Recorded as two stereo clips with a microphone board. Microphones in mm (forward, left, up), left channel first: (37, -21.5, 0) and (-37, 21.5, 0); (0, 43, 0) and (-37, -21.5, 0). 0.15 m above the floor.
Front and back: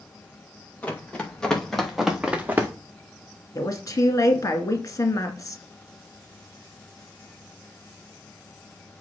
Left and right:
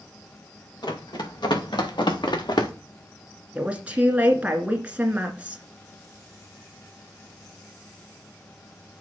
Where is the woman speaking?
55° right, 1.7 m.